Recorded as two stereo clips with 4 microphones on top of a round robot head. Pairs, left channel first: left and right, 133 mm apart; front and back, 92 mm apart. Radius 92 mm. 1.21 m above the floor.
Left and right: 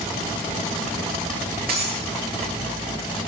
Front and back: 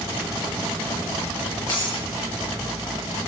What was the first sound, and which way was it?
Breaking glass, 65° right.